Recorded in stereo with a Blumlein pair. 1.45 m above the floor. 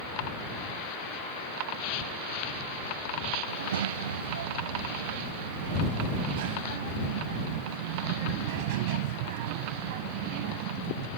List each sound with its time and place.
3.5 s a child speaking: 65° right; by 11.1 s 45° right